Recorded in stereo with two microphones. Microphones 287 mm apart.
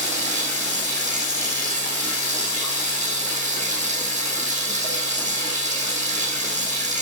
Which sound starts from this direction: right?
Running water, at 0.0 s.